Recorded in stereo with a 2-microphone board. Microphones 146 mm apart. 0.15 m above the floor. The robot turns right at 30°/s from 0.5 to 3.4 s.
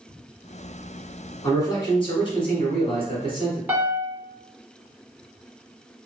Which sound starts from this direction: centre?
A piano, at 3.7 s.